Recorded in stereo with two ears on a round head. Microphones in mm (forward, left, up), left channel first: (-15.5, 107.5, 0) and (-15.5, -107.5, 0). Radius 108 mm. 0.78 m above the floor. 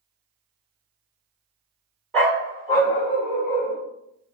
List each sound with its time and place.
2.1 s a dog barking: 5° left (ahead or behind), 1.2 m; by 3.8 s 25° left (ahead or behind), 2.5 m